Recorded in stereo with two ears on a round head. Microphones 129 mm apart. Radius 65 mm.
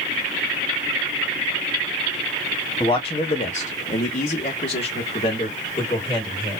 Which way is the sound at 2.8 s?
25° left (ahead or behind).